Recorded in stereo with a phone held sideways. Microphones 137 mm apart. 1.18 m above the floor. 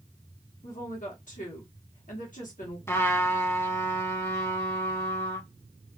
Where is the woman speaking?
65° left (ahead or behind), 1.0 m.